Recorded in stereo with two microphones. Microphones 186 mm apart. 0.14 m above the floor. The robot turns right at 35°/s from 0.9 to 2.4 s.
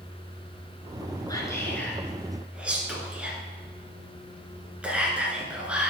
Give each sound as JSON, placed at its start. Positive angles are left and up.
{"t": 1.3, "sound": "whispering", "side_deg": 20, "distance_m": 1.7}